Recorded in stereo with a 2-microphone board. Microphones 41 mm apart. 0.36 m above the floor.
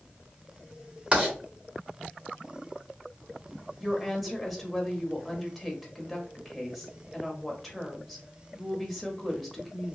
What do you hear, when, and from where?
1.1 s writing: 30° right (ahead or behind), 1.5 m
3.8 s a woman speaking: centre (ahead or behind), 1.1 m